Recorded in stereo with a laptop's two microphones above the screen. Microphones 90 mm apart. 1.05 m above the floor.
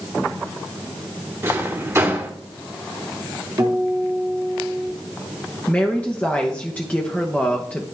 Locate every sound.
1.4 s a drawer: 30° right (ahead or behind), 1.4 m
3.6 s a guitar: 45° right (ahead or behind), 2.5 m
5.7 s a woman speaking: 15° left (ahead or behind), 0.9 m